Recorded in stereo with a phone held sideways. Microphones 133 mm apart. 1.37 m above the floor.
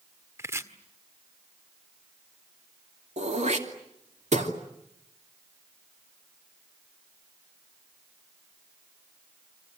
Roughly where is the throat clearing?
Right.